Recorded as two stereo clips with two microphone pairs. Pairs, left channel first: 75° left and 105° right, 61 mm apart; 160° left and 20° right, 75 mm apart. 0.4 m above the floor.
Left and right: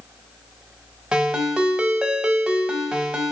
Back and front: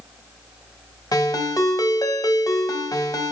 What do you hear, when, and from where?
1.1 s a ringtone: straight behind, 0.8 m